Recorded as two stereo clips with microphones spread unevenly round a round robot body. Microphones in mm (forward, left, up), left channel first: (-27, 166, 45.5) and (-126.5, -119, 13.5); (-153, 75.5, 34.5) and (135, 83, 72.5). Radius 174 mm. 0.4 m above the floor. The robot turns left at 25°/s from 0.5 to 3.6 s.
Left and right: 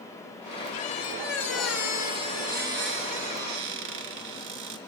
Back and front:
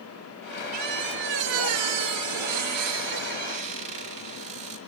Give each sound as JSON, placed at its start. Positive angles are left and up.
{"t": 0.7, "sound": "a squeak", "azimuth_deg": 5, "distance_m": 3.0}